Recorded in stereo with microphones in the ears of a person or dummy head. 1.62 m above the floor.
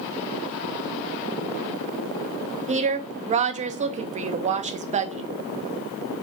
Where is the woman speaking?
30° right (ahead or behind), 0.6 m.